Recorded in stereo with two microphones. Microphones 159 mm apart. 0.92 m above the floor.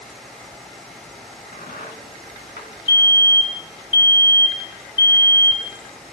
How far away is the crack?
About 2.5 m.